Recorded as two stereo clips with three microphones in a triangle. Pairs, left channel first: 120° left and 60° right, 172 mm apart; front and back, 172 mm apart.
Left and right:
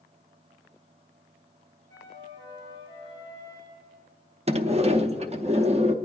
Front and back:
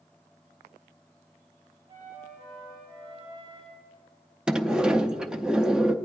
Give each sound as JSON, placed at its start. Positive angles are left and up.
{"t": 1.9, "sound": "a flute", "azimuth_deg": -125, "distance_m": 5.0}
{"t": 4.5, "sound": "a sliding door", "azimuth_deg": -95, "distance_m": 0.5}